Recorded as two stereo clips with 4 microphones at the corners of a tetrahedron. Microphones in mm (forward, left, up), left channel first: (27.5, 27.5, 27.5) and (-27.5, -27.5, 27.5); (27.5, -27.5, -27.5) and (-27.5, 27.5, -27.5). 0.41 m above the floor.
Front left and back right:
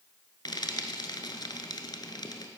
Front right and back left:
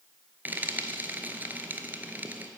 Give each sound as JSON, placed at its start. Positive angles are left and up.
{"t": 0.5, "sound": "frying", "azimuth_deg": 70, "distance_m": 1.0}